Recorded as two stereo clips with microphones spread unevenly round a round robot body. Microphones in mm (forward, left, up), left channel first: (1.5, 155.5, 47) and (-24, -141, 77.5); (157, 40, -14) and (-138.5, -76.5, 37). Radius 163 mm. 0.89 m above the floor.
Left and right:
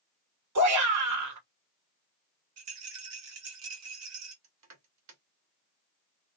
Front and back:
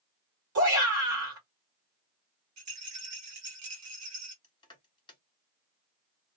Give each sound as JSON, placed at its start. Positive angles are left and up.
{"t": 0.6, "sound": "a shout", "azimuth_deg": -110, "distance_m": 1.7}
{"t": 2.6, "sound": "a rattle", "azimuth_deg": -125, "distance_m": 1.5}
{"t": 4.4, "sound": "crushing", "azimuth_deg": -55, "distance_m": 1.2}